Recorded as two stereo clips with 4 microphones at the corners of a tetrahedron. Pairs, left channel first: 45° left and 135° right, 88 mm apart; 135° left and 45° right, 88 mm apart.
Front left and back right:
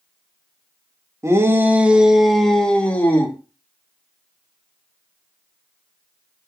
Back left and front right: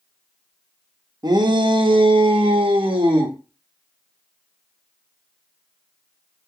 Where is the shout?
80° right, 1.4 m; by 3.4 s 20° right, 2 m.